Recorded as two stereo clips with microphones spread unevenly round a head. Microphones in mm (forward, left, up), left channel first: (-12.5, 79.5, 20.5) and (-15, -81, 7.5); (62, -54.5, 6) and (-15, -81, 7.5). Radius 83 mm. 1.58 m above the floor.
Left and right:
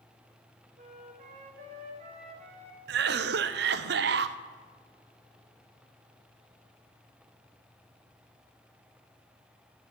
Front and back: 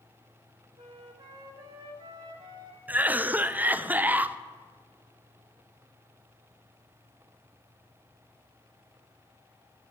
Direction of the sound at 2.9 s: 95° right.